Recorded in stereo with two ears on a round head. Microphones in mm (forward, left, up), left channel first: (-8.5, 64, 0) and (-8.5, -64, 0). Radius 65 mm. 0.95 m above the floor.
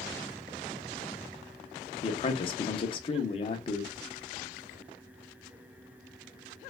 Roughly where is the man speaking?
Left.